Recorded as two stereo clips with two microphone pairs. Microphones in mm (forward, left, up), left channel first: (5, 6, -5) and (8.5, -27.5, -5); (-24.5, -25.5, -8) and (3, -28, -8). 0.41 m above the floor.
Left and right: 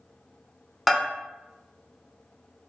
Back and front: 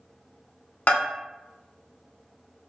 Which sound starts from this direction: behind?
A bell, at 0.9 s.